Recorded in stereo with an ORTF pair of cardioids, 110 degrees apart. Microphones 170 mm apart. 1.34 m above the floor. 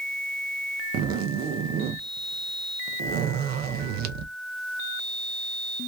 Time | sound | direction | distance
0.9 | a zipper | 65° right | 0.5 m